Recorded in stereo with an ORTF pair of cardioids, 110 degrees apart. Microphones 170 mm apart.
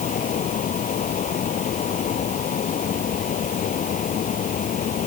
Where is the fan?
50° left.